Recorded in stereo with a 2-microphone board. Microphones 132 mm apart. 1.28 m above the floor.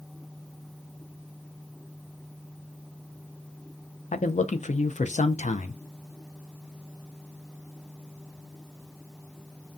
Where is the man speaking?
65° left (ahead or behind), 0.5 m.